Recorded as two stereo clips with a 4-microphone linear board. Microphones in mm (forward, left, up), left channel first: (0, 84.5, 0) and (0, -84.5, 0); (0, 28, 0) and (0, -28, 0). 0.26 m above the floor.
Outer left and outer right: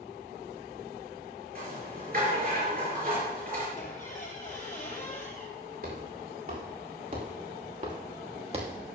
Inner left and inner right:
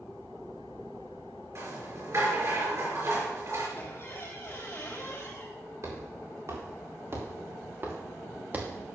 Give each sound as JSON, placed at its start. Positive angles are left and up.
{"t": 1.6, "sound": "a rattle", "side_deg": -60, "distance_m": 4.5}
{"t": 3.8, "sound": "a squeak", "side_deg": 45, "distance_m": 3.0}
{"t": 5.8, "sound": "footsteps", "side_deg": -60, "distance_m": 6.0}